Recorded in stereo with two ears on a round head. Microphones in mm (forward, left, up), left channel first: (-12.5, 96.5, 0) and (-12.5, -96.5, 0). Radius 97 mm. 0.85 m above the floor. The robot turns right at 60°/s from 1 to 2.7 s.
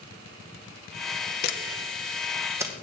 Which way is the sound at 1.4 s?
50° left (ahead or behind).